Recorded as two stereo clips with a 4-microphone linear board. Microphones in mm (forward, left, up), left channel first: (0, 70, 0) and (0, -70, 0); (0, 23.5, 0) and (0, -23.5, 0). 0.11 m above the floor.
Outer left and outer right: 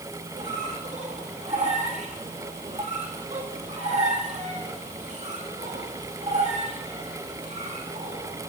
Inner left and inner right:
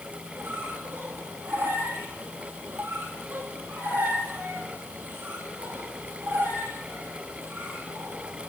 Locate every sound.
0.3 s a squeak: 55° right (ahead or behind), 2.5 m